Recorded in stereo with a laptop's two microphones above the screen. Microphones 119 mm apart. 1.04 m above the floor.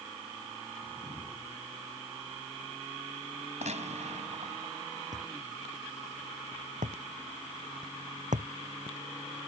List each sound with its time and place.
0.8 s a whoosh: 15° right (ahead or behind)
3.6 s a gunshot: 65° right (ahead or behind)
5.1 s a thud: 75° right (ahead or behind)